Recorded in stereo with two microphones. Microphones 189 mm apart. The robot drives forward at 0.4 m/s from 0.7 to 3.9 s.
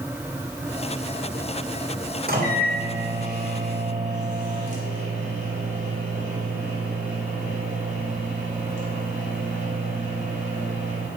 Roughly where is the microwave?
Right.